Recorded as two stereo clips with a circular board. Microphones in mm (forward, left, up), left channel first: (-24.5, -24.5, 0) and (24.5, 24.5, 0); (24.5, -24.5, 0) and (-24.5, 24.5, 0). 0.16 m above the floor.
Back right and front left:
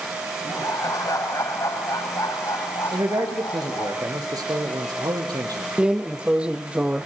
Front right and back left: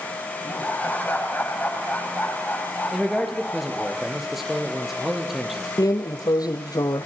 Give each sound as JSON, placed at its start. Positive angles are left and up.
{"t": 0.5, "sound": "laughter", "azimuth_deg": -110, "distance_m": 7.5}
{"t": 2.9, "sound": "a man speaking", "azimuth_deg": 50, "distance_m": 4.5}
{"t": 5.8, "sound": "a drawer", "azimuth_deg": -30, "distance_m": 1.6}